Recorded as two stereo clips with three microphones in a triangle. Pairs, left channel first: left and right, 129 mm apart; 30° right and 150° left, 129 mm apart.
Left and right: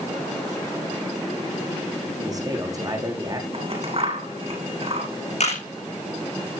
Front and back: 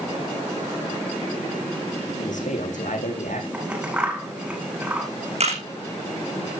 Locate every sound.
2.2 s a man speaking: 30° right, 7.5 m
3.5 s scissors: 130° right, 9.5 m
5.4 s a camera shutter: 120° left, 6.5 m